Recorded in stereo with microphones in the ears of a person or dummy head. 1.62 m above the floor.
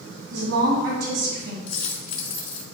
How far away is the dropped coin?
About 2.5 m.